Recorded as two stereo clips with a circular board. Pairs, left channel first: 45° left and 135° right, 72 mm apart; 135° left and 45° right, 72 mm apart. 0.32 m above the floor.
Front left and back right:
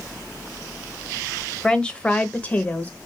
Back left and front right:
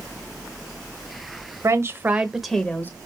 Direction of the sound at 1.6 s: 30° right.